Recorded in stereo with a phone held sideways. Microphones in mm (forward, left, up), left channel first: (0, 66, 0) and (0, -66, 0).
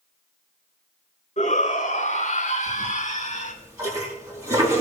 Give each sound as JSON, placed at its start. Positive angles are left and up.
{"t": 1.4, "sound": "a shout", "side_deg": 60, "distance_m": 4.5}
{"t": 2.7, "sound": "a toilet flushing", "side_deg": -25, "distance_m": 3.5}